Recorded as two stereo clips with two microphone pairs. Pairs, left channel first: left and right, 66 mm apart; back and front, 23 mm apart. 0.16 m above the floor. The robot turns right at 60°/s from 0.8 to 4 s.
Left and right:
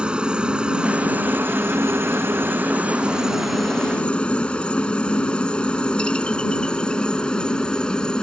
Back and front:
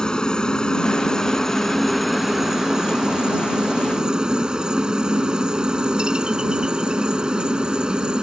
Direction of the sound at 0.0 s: 155° right.